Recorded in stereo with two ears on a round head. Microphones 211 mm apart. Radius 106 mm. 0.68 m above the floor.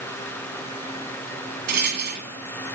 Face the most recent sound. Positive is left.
turn(degrees=-45)  # may be behind; listen again after turning